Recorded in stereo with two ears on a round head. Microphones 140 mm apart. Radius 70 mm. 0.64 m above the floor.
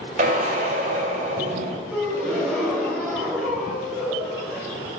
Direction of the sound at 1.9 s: Centre (ahead or behind).